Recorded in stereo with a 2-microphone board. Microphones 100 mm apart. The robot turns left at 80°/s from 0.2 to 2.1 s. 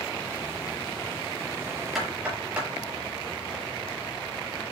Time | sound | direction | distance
1.9 | knocking | centre (ahead or behind) | 6.5 m